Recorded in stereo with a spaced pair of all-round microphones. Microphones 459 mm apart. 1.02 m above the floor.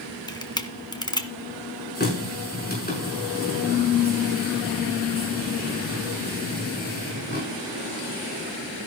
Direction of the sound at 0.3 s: 10° left (ahead or behind).